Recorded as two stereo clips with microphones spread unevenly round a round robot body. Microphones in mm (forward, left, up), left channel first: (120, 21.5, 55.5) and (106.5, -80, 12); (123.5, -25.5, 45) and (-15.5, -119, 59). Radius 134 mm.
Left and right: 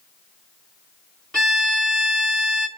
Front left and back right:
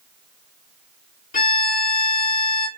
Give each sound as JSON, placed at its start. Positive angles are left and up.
{"t": 1.3, "sound": "a violin", "azimuth_deg": -5, "distance_m": 1.0}